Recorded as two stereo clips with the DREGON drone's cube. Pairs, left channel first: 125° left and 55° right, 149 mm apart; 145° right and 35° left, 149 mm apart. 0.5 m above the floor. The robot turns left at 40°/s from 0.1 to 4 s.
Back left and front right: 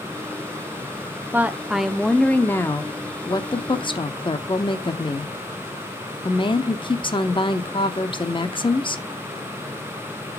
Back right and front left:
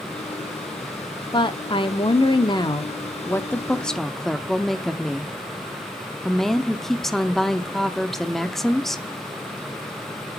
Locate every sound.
1.3 s a woman speaking: 125° right, 0.8 m; by 9.0 s 130° left, 0.8 m